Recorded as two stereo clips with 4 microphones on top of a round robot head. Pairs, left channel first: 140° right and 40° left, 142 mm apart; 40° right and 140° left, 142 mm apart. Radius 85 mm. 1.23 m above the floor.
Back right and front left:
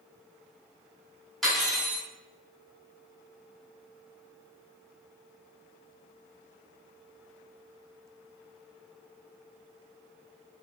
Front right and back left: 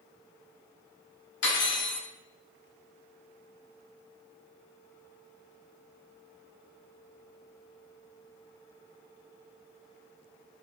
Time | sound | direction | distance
1.4 | cutlery clinking | 50° right | 1.3 m